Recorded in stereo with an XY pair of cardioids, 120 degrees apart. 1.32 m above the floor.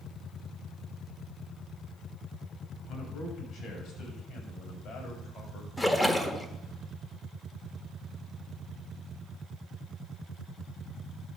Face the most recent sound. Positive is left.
turn(degrees=10)